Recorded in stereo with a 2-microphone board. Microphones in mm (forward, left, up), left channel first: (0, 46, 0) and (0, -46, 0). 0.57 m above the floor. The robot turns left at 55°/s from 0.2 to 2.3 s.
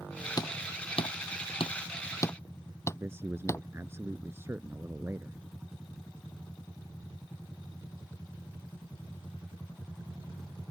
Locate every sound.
0.4 s hammering: 45° left (ahead or behind); by 3.6 s 30° left (ahead or behind)
2.9 s a man speaking: 25° right (ahead or behind)